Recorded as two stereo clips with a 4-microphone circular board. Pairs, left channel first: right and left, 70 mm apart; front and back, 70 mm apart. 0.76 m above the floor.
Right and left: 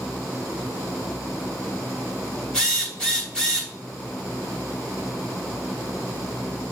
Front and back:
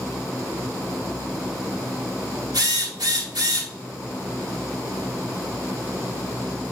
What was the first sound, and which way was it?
A drill, 165° right.